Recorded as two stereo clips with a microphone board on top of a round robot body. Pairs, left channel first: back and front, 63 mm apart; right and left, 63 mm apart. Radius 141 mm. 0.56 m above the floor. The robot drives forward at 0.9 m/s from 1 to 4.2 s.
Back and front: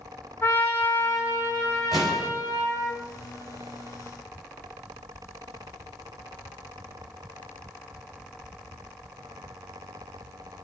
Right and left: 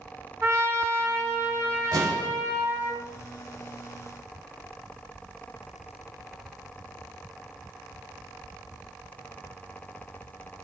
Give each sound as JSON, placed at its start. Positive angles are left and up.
{"t": 0.4, "sound": "a trumpet", "azimuth_deg": 130, "distance_m": 3.0}
{"t": 1.9, "sound": "an explosion", "azimuth_deg": 90, "distance_m": 4.5}